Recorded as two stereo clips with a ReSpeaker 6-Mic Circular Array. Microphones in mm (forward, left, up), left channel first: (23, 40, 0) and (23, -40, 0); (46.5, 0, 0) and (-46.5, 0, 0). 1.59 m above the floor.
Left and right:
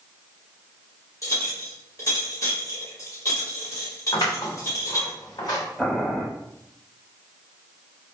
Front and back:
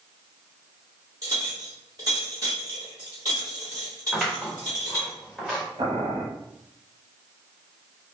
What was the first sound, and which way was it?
A clink, 135° left.